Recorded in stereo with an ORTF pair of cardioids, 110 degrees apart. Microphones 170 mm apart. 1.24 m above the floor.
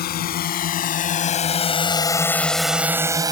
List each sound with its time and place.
0.0 s a drone: 65° left; by 3.3 s 25° right